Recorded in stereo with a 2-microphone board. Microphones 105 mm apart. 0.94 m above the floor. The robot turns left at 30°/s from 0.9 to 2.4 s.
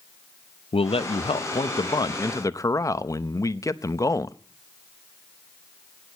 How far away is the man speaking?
About 0.6 m.